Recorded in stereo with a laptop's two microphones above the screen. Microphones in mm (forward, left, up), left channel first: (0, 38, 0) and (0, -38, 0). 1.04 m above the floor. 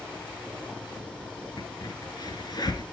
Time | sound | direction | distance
0.0 | a fan | 15° left (ahead or behind) | 5 m
1.6 | a crack | 60° left (ahead or behind) | 2.5 m